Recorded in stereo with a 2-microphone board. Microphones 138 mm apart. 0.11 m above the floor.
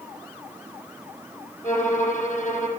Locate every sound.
1.6 s a violin: 70° left (ahead or behind), 2 m